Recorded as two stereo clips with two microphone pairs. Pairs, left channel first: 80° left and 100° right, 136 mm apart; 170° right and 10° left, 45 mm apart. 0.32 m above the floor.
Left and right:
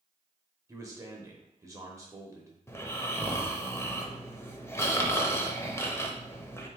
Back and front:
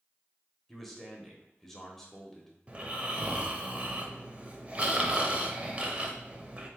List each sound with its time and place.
0.7 s a man speaking: 100° right, 0.9 m
2.7 s snoring: 25° left, 0.6 m